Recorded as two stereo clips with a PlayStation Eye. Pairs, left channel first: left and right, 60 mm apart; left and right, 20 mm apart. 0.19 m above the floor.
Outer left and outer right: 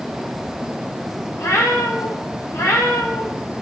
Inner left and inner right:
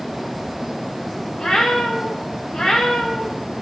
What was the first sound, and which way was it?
A cat meowing, 55° left (ahead or behind).